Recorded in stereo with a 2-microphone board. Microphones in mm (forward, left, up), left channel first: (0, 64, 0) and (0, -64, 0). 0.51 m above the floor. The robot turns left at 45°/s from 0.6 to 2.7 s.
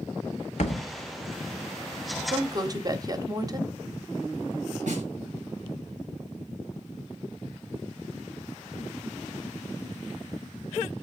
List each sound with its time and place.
0.6 s a thud: 60° left (ahead or behind), 1.4 m; by 0.8 s 50° left (ahead or behind), 1.4 m
2.3 s a woman speaking: 35° right (ahead or behind), 1.1 m; by 3.7 s 30° right (ahead or behind), 1.1 m
4.9 s a snare drum: 70° right (ahead or behind), 6 m